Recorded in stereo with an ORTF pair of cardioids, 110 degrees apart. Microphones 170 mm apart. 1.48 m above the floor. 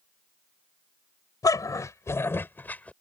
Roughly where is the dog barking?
Ahead.